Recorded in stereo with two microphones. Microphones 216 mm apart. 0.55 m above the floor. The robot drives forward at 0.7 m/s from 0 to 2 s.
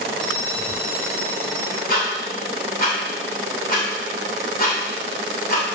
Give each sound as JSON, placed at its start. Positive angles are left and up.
{"t": 0.2, "sound": "a bell", "side_deg": 0, "distance_m": 3.0}
{"t": 1.9, "sound": "ticking", "side_deg": 45, "distance_m": 2.0}